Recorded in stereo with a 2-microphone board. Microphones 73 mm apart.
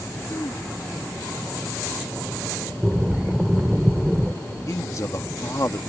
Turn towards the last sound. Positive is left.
turn(degrees=45)  # may be behind; listen again after turning